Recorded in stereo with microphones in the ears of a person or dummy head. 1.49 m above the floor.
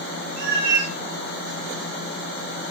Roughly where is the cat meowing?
Right.